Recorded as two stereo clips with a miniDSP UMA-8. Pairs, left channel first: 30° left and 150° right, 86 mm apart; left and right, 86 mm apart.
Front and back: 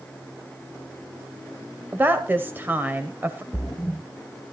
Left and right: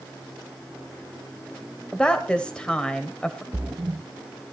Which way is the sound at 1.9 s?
160° left.